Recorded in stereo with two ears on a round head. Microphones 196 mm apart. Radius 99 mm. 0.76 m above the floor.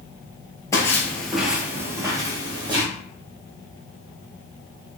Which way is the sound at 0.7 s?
15° left (ahead or behind).